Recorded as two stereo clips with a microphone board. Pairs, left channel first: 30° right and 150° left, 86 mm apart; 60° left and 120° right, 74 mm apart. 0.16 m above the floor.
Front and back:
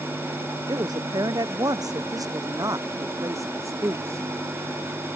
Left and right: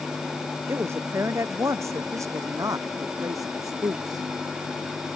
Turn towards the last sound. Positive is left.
turn(degrees=-155)